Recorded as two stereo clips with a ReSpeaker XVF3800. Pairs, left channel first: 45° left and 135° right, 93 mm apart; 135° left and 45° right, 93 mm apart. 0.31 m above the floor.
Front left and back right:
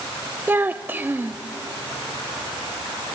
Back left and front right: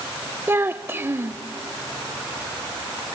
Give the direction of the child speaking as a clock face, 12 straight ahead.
3 o'clock.